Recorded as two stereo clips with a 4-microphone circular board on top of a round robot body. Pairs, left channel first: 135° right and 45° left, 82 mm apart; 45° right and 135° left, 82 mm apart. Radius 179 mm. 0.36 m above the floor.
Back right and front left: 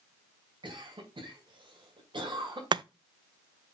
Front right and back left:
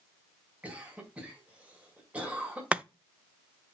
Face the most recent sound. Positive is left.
turn(degrees=60)